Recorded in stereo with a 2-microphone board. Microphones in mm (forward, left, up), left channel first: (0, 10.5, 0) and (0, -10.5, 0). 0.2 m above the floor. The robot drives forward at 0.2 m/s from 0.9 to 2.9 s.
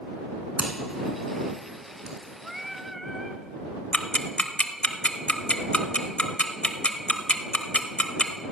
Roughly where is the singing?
Centre.